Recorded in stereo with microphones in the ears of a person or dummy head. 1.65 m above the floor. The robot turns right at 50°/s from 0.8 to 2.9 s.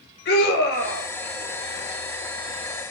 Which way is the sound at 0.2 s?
65° left (ahead or behind).